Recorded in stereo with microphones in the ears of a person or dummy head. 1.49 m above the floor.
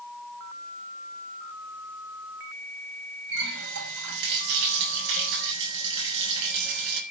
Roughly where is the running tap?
Right.